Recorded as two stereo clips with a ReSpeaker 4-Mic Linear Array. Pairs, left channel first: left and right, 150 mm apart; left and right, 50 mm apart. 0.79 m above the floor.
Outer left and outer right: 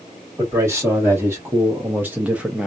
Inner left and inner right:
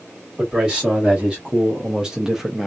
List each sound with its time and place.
0.4 s a man speaking: 20° right (ahead or behind), 2.0 m; by 2.7 s 5° right (ahead or behind), 0.8 m